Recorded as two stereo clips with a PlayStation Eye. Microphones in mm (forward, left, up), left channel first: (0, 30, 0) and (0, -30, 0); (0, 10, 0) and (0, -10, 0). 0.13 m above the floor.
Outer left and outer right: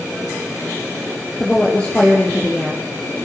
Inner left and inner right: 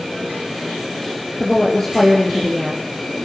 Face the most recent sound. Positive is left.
turn(degrees=15)  # may be behind; listen again after turning